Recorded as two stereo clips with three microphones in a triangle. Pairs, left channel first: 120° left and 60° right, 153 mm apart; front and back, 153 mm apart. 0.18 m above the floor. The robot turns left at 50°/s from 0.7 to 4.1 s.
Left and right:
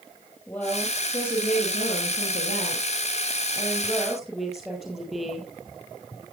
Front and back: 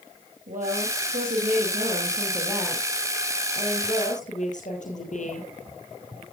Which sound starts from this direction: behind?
A woman speaking, at 0.5 s.